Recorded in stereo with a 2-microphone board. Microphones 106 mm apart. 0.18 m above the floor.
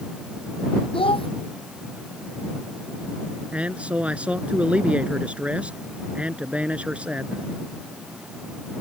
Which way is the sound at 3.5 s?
10° right (ahead or behind).